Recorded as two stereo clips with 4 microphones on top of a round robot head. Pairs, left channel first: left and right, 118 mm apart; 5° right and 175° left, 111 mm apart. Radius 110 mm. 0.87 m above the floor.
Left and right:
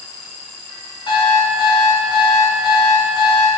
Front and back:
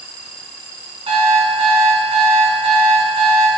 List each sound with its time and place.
1.1 s an alarm clock: 145° left, 3.5 m